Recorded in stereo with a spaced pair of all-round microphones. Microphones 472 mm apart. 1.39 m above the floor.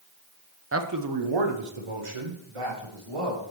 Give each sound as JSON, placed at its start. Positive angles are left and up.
{"t": 0.7, "sound": "a man speaking", "side_deg": -25, "distance_m": 0.7}